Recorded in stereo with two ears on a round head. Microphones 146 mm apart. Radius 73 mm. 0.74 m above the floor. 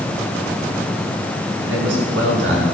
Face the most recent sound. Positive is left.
turn(degrees=-80)